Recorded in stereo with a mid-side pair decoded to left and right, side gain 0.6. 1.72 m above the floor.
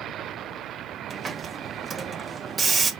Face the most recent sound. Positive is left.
turn(degrees=-30)